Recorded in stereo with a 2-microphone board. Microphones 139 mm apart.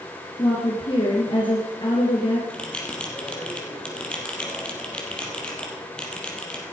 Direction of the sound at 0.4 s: 35° left (ahead or behind).